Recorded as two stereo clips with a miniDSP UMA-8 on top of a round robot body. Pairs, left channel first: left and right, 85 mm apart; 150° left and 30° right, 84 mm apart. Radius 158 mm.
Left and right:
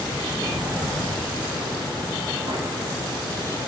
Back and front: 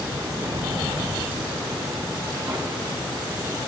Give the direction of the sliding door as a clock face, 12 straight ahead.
1 o'clock.